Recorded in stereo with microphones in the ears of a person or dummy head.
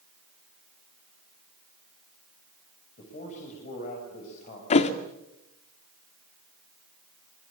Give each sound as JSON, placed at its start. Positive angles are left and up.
{"t": 3.0, "sound": "a man speaking", "side_deg": 40, "distance_m": 7.0}
{"t": 4.7, "sound": "a thud", "side_deg": 40, "distance_m": 1.7}